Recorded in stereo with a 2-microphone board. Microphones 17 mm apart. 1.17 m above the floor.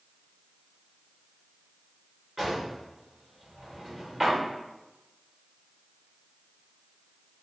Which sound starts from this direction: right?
A drawer, at 2.4 s.